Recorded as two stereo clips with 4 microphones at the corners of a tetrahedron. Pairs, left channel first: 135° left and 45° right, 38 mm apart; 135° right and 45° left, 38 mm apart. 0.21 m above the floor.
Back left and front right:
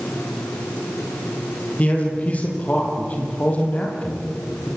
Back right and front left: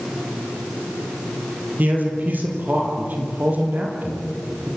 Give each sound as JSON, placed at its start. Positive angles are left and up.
{"t": 1.8, "sound": "a man speaking", "azimuth_deg": 80, "distance_m": 5.5}